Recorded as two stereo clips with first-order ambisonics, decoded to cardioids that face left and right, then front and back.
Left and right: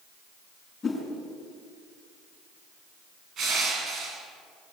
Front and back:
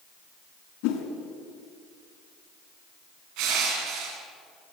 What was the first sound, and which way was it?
A whoosh, 15° left.